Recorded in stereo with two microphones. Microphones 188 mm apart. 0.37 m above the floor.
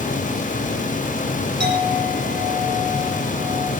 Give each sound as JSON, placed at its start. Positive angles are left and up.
{"t": 1.6, "sound": "a clink", "side_deg": -65, "distance_m": 9.5}